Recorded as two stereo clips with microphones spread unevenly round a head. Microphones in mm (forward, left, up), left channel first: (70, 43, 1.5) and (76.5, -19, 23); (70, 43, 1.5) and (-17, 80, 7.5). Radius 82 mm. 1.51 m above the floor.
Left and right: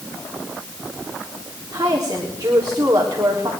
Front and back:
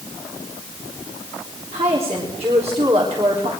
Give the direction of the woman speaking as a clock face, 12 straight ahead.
5 o'clock.